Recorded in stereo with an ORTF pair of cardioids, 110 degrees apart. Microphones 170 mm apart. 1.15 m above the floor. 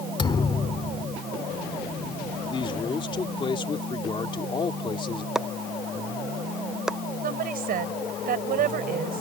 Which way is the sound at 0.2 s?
30° left.